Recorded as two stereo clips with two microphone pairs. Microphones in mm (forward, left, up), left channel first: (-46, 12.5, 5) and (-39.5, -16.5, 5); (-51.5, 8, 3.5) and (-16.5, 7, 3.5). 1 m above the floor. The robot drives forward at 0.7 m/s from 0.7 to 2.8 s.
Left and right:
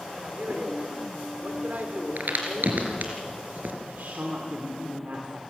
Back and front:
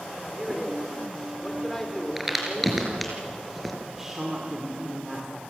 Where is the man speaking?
90° right, 3.5 m; by 3.2 s 110° right, 4 m.